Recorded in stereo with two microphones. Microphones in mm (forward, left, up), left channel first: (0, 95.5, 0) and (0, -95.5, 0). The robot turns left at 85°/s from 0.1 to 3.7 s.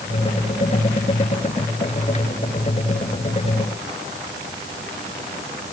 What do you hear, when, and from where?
Only background noise.